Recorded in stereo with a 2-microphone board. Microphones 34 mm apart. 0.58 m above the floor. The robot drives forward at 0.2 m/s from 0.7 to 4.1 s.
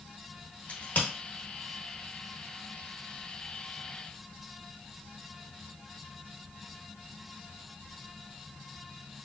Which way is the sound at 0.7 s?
70° left (ahead or behind).